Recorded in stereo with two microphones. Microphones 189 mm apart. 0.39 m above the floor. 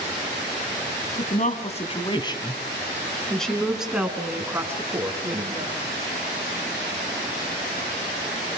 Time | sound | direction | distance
1.2 | a woman speaking | 45° left (ahead or behind) | 3 m